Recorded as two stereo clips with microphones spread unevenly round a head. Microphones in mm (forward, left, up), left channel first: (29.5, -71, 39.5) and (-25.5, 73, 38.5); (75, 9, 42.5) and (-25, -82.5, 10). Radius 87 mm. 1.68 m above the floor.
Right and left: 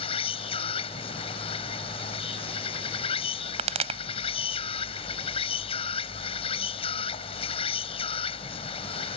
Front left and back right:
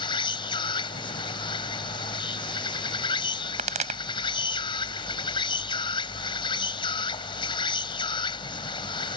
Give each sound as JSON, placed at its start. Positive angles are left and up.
{"t": 0.0, "sound": "an insect", "azimuth_deg": -10}
{"t": 3.6, "sound": "a pop", "azimuth_deg": 165}